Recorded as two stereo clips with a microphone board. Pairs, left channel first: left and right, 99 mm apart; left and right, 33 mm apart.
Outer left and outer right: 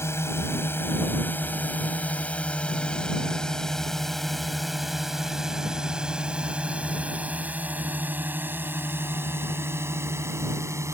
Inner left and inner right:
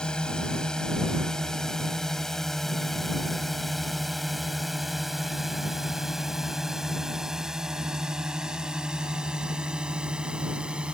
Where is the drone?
25° left (ahead or behind); by 10.9 s 30° right (ahead or behind).